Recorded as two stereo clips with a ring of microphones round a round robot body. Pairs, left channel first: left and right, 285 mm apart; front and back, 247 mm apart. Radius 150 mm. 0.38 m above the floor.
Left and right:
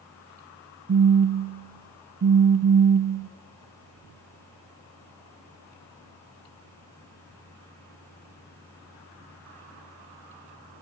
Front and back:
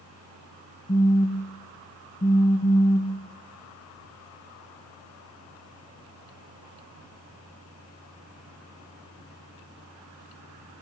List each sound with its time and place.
0.9 s a phone buzzing: 60° right, 0.5 m